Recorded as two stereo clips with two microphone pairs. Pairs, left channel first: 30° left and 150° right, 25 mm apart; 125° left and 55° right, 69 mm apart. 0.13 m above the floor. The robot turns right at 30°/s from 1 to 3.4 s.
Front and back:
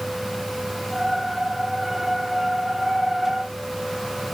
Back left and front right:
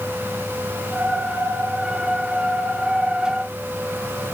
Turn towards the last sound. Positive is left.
No sound to turn to.